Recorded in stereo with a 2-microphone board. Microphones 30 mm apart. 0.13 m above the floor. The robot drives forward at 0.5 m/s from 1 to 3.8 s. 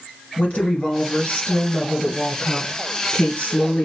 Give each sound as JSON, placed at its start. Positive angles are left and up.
{"t": 0.4, "sound": "a woman speaking", "side_deg": 45, "distance_m": 2.5}